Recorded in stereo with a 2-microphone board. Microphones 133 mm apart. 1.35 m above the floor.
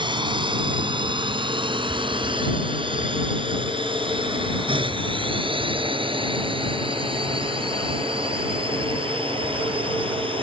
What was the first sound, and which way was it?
A drone, 35° right (ahead or behind).